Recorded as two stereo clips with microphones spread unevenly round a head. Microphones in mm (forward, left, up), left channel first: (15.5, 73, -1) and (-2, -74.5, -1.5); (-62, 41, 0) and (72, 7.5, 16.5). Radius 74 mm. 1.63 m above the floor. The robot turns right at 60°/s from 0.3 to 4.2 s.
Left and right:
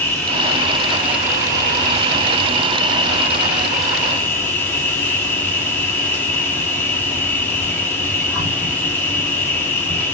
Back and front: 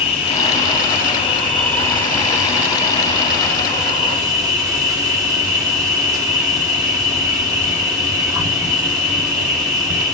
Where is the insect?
145° left, 1.1 m; by 10.1 s 15° left, 1.1 m.